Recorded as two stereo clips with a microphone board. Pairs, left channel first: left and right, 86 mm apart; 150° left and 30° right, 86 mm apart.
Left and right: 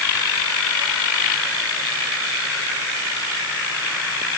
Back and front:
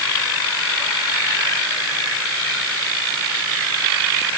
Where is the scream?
No scream in this recording.